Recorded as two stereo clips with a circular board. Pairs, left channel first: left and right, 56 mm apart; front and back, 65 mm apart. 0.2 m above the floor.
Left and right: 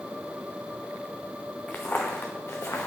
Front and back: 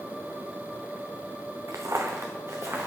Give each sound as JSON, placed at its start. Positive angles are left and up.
{"t": 1.7, "sound": "footsteps", "azimuth_deg": 150, "distance_m": 1.2}